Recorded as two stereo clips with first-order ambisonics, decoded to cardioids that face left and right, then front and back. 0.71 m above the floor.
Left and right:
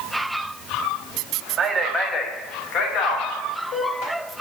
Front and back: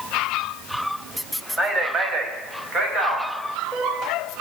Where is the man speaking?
120° right, 0.7 m; by 4.1 s 120° left, 3 m.